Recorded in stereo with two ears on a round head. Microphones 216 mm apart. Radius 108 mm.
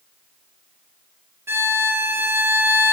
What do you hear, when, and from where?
1.5 s a violin: 10° right (ahead or behind), 0.6 m